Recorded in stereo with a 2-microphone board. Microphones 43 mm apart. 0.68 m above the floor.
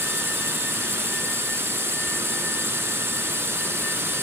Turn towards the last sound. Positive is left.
turn(degrees=-75)  # may be behind; listen again after turning